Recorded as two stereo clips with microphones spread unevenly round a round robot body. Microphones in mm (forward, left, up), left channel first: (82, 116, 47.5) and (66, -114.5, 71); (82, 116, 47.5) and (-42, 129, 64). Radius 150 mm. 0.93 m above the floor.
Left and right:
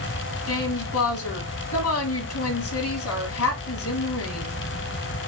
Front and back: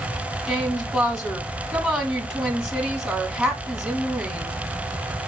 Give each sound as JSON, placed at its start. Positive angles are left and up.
{"t": 0.5, "sound": "a woman speaking", "azimuth_deg": 85, "distance_m": 2.0}